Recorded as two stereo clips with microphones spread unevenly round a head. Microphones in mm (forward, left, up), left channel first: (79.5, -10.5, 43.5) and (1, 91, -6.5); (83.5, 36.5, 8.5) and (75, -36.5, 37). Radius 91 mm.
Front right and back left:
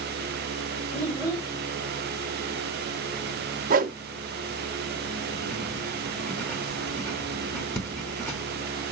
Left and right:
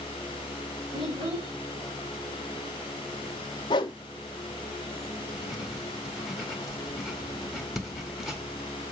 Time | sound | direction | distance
0.9 | a child speaking | 120° right | 4.5 m
3.7 | a whoosh | 125° left | 0.6 m
5.3 | writing | 40° right | 1.9 m